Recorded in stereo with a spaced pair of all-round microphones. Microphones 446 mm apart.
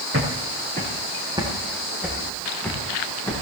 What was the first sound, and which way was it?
Footsteps, 30° right (ahead or behind).